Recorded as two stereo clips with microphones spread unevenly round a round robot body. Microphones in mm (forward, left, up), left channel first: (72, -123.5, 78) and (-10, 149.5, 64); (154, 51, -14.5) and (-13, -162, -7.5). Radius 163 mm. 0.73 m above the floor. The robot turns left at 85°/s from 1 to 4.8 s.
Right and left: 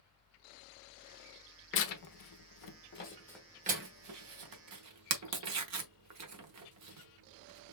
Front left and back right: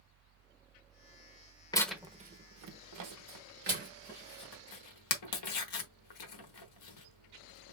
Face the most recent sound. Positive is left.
turn(degrees=75)